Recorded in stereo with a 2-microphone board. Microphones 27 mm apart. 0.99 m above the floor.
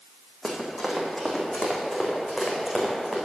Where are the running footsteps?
Centre (ahead or behind), 2.5 m; by 3.2 s 10° right (ahead or behind), 4 m.